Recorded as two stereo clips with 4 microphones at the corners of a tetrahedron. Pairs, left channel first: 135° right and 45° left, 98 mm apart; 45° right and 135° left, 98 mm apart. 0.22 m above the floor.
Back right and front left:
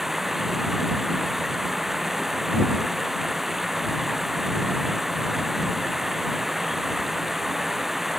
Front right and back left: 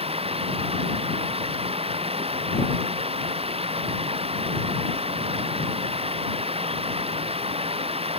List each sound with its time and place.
0.0 s running water: 135° left